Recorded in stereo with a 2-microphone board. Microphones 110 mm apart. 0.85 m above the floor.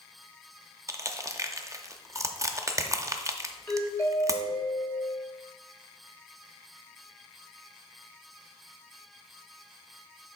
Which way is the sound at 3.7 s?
15° left (ahead or behind).